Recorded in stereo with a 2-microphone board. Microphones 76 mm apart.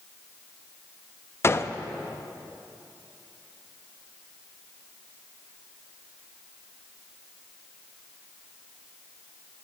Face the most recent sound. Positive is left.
turn(degrees=30)  # may be behind; listen again after turning